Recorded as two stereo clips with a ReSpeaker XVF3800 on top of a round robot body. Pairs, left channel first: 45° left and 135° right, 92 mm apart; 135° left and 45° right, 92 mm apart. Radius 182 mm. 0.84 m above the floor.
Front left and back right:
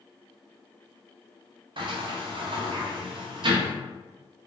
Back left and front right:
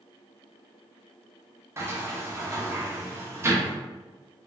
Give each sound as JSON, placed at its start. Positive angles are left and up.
{"t": 1.8, "sound": "a sliding door", "azimuth_deg": -105, "distance_m": 0.6}